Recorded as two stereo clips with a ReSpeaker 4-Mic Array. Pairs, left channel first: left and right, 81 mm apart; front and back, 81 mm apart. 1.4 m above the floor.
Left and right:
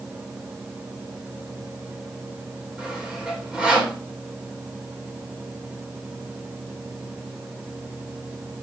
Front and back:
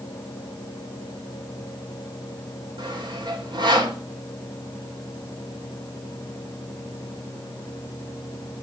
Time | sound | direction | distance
2.8 | sawing | 165° right | 2 m